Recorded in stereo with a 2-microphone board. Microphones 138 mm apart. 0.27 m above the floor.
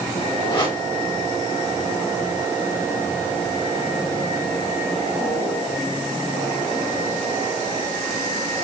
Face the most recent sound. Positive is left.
turn(degrees=35)  # may be behind; listen again after turning